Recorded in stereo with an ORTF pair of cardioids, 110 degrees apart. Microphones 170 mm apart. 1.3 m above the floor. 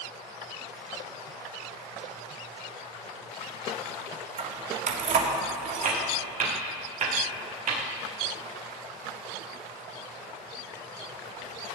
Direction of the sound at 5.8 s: 50° right.